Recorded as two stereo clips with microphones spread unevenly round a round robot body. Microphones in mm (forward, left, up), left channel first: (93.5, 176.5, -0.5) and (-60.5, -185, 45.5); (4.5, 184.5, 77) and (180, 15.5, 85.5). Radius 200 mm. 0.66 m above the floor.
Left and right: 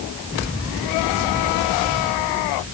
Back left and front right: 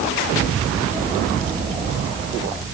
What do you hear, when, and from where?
Only background noise.